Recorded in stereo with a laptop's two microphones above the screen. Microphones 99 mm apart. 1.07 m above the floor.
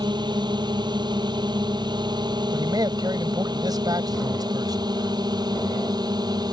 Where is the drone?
45° right (ahead or behind); by 6.5 s 40° right (ahead or behind).